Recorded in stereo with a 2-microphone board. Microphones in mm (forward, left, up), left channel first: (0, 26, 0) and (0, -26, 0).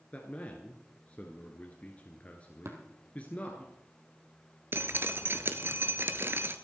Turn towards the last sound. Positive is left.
turn(degrees=-45)  # may be behind; listen again after turning